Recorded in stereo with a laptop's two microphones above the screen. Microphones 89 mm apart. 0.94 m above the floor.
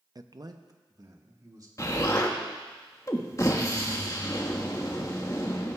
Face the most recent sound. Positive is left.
turn(degrees=35)  # may be behind; listen again after turning